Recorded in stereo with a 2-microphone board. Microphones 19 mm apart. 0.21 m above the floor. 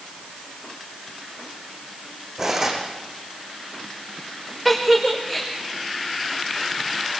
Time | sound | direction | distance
2.4 | cutlery clinking | 25° right (ahead or behind) | 7.5 m
4.7 | a giggle | 15° left (ahead or behind) | 4.5 m